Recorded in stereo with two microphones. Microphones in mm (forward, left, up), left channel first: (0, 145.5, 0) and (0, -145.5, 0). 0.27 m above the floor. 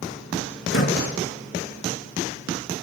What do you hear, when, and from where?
0.7 s a door slam: 45° left (ahead or behind), 3.5 m